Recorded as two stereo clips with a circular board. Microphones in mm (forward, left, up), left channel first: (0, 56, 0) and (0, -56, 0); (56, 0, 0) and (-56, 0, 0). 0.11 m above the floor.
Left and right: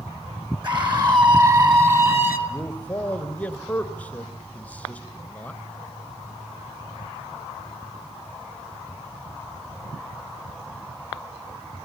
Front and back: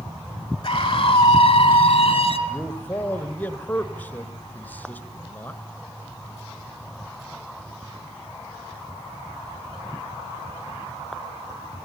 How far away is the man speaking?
About 1.4 m.